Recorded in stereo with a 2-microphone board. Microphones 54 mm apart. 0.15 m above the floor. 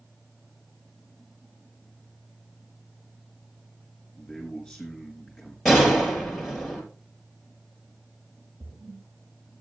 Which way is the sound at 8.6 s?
55° right (ahead or behind).